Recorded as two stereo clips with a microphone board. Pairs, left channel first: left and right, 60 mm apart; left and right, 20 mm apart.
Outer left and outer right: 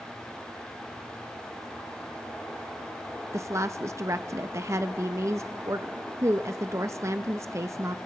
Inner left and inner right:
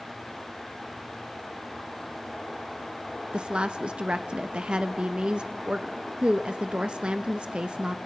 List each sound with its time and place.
3.3 s a woman speaking: 50° right (ahead or behind), 0.5 m